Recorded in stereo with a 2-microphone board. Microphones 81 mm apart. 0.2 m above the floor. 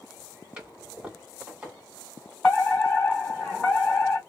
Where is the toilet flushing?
15° right (ahead or behind), 2 m.